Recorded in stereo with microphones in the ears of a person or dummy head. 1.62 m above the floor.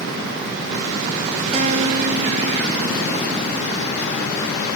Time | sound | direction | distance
1.5 | a guitar | 35° right (ahead or behind) | 4.5 m